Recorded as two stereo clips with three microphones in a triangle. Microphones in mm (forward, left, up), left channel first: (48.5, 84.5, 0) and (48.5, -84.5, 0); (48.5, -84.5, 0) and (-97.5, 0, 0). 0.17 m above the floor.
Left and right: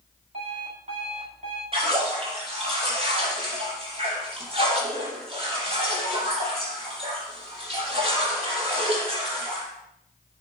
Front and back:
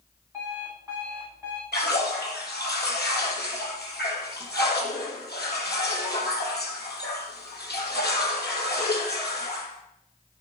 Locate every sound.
0.3 s an alarm clock: 135° right, 9.5 m
1.7 s a splash: 35° right, 5.5 m